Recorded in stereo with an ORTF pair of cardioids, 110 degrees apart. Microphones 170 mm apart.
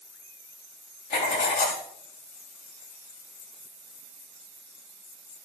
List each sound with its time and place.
1.1 s writing: 65° left, 4 m